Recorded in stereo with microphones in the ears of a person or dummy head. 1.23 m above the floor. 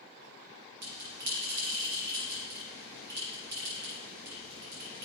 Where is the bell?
60° right (ahead or behind), 5 m.